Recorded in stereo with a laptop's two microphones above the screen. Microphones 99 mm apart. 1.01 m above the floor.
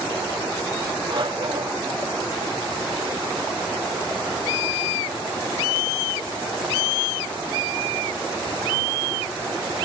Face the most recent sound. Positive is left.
turn(degrees=-55)  # may be behind; listen again after turning